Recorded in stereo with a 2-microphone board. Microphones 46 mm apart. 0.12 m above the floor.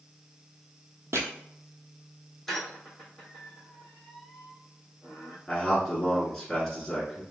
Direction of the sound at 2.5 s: 5° left (ahead or behind).